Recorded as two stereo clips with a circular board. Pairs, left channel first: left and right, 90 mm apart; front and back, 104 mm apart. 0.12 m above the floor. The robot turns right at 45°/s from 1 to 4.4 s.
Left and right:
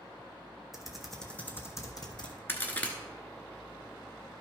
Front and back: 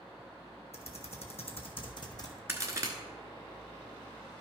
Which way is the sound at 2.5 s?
135° left.